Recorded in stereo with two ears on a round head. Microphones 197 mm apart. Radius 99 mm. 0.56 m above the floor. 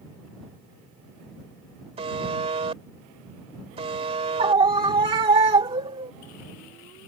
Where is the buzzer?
25° right (ahead or behind).